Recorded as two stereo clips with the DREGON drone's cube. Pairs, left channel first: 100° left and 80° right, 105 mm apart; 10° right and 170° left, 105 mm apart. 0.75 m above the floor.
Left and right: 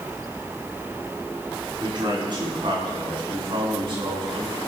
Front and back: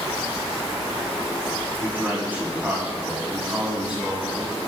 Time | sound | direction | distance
1.8 | a man speaking | 120° right | 6.5 m